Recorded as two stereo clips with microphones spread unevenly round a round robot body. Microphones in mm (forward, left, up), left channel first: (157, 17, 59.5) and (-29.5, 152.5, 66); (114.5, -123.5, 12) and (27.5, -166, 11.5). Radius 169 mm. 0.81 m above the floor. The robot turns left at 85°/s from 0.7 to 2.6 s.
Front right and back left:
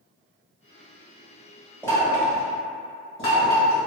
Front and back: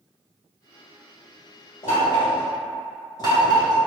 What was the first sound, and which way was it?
Knocking, 45° left.